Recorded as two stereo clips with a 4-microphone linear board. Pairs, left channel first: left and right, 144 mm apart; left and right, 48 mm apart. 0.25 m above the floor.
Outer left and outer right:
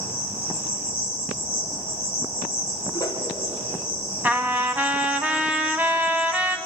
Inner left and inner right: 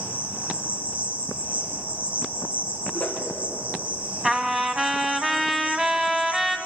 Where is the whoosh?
25° left (ahead or behind), 3 m.